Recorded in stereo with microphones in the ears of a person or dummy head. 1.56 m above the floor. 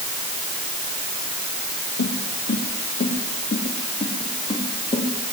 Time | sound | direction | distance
2.0 | footsteps | 55° left (ahead or behind) | 4 m